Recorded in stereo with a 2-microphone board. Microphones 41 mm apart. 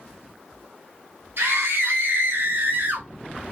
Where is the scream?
70° right (ahead or behind), 2.5 m; by 3.1 s 50° right (ahead or behind), 1.3 m.